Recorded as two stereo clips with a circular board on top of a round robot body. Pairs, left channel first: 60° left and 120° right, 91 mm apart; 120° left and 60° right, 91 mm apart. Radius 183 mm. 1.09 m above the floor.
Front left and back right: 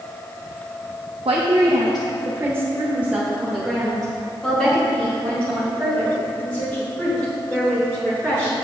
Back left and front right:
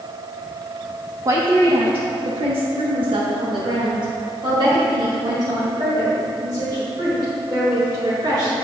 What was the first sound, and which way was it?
A woman speaking, 110° right.